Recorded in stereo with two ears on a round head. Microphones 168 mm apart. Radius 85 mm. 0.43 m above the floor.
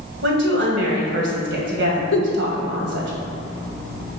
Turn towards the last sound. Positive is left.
turn(degrees=65)  # may be behind; listen again after turning